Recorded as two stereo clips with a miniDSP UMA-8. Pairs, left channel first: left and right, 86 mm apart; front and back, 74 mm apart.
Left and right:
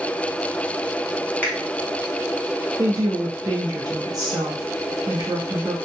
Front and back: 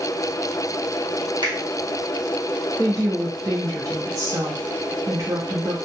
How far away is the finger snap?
About 1.0 m.